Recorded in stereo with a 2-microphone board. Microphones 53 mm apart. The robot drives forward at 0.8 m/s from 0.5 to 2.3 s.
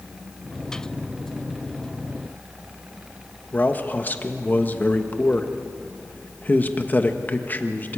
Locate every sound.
3.5 s a man speaking: 35° left (ahead or behind), 1.4 m